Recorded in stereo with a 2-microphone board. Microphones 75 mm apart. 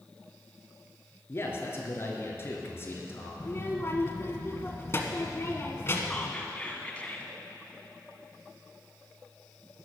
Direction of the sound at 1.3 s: 35° left (ahead or behind).